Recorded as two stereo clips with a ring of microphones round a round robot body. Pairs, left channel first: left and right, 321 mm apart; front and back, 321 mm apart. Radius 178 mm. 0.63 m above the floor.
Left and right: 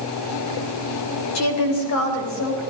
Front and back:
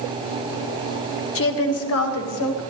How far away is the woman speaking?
About 2.5 m.